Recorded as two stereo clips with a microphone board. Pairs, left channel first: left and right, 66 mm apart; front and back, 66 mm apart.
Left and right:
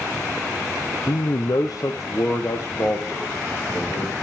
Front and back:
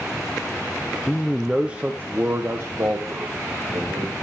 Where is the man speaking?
75° left, 0.6 m; by 4.2 s 145° left, 2 m.